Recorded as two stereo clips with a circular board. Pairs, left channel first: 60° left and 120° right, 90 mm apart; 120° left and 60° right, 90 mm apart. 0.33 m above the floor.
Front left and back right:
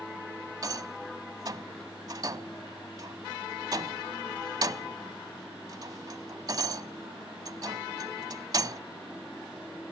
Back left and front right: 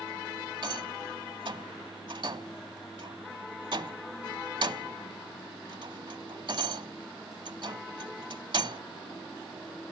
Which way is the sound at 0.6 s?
80° right.